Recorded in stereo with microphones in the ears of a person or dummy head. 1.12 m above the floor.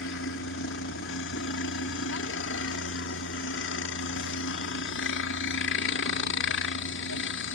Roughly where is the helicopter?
Left.